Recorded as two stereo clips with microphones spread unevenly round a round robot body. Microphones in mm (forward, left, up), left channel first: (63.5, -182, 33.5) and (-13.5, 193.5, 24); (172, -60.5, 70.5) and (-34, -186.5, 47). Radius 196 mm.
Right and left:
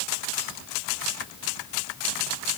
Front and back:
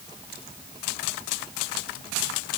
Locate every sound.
Only background noise.